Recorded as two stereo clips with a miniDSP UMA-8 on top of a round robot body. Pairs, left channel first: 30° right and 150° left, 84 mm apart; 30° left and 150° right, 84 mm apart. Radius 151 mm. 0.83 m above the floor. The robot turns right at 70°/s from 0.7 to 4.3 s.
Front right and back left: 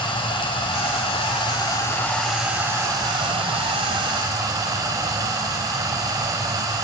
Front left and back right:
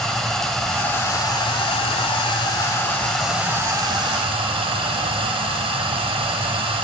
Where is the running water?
55° right, 3.5 m; by 6.8 s 165° right, 3.5 m.